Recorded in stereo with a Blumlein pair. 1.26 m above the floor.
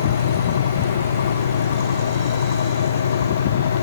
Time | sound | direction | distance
0.0 | a fan | 65° left | 0.8 m